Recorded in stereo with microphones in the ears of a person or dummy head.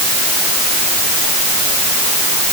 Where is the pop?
I don't hear a pop.